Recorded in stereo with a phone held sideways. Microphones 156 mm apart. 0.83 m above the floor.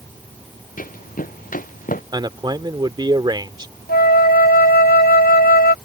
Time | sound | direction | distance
0.8 | running footsteps | 65° left (ahead or behind) | ?
2.1 | a man speaking | 30° right (ahead or behind) | ?
3.9 | a flute | 85° left | ?